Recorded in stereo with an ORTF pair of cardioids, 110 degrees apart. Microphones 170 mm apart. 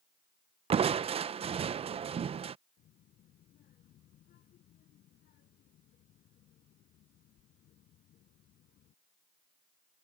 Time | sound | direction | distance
0.7 | crushing | 35° right | ?
2.8 | a child speaking | 60° left | ?